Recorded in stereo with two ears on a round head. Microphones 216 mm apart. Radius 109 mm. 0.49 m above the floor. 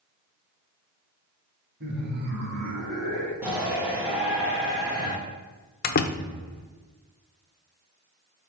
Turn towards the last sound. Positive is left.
turn(degrees=40)  # may be behind; listen again after turning